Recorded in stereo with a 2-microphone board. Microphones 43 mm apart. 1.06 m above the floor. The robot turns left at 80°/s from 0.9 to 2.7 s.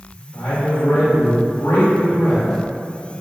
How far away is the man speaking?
About 1.7 m.